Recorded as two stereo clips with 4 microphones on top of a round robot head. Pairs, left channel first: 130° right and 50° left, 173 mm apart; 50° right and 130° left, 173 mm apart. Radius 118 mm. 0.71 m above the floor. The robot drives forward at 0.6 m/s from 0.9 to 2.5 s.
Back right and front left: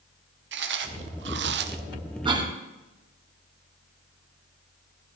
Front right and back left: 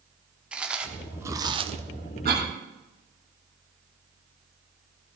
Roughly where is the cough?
Left.